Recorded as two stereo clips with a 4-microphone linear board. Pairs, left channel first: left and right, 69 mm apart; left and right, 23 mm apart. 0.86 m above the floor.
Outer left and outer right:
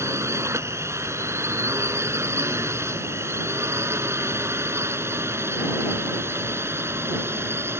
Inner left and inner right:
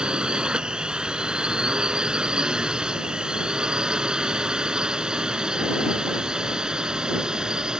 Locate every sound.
0.0 s a drone: 40° right (ahead or behind); by 7.8 s 35° right (ahead or behind)